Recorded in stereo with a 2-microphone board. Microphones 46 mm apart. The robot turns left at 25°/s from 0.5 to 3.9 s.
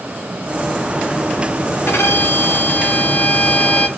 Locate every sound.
1.9 s a violin: 70° left, 0.8 m; by 3.9 s 20° left, 0.8 m